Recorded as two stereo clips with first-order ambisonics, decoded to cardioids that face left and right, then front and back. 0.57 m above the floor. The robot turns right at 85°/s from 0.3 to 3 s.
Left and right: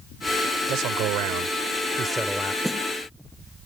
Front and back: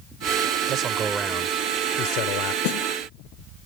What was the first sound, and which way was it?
A man speaking, 140° right.